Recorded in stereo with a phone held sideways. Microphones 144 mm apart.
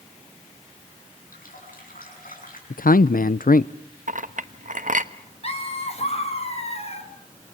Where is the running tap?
80° left, 8 m.